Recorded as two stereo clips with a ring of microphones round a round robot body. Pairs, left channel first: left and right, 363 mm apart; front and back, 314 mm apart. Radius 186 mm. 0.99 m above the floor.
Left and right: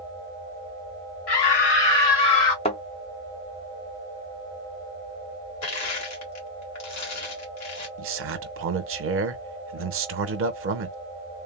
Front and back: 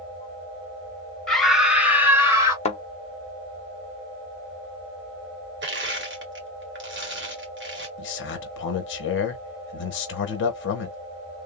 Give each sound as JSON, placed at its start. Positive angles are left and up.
{"t": 1.3, "sound": "a scream", "azimuth_deg": 90, "distance_m": 1.4}
{"t": 2.6, "sound": "a thud", "azimuth_deg": 35, "distance_m": 0.5}
{"t": 5.6, "sound": "crushing", "azimuth_deg": 130, "distance_m": 1.5}
{"t": 8.0, "sound": "a man speaking", "azimuth_deg": -45, "distance_m": 0.8}